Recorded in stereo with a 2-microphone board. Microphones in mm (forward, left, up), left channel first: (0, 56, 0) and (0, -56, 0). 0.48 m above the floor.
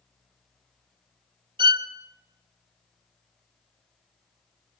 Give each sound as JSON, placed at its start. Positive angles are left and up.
{"t": 1.6, "sound": "a violin", "side_deg": -45, "distance_m": 1.2}